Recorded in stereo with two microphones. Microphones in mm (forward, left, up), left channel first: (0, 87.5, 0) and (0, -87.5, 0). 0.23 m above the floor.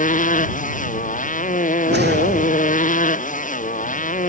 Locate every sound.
0.0 s a motorcycle: 45° left (ahead or behind)
1.9 s a whoosh: 75° right (ahead or behind)